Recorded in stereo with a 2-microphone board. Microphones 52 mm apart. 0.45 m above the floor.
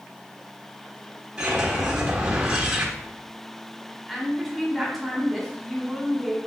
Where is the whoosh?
15° right (ahead or behind), 1.1 m.